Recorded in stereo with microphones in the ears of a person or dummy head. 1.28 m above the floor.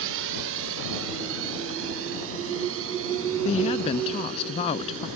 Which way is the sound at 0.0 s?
70° right (ahead or behind).